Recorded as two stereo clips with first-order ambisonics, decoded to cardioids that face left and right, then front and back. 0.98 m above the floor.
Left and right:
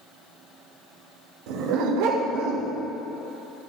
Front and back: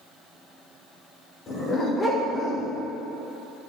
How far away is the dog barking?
About 1.3 m.